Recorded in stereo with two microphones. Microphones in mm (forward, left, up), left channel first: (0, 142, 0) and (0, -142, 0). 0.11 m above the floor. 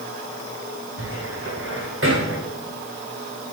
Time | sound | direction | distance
1.0 | a cupboard door | 45° right (ahead or behind) | 4.5 m